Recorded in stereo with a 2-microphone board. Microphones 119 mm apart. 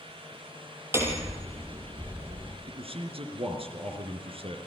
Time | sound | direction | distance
0.9 | hammering | 20° right (ahead or behind) | 4.5 m
2.7 | a man speaking | 55° right (ahead or behind) | 4.5 m